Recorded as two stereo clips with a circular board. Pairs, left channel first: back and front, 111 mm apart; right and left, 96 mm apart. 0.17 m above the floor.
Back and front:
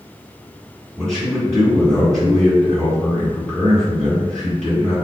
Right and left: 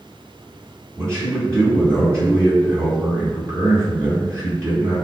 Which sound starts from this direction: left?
A man speaking, at 1.0 s.